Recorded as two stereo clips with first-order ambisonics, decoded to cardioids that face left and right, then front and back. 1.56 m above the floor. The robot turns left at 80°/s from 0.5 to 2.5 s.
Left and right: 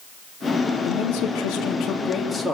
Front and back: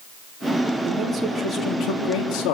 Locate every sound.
0.8 s a man speaking: 125° left, 3.5 m; by 2.5 s 10° right, 3.5 m